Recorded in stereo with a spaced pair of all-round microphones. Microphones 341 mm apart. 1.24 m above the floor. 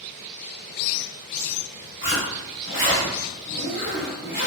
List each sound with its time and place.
2.0 s a zipper: 35° right (ahead or behind), 1.5 m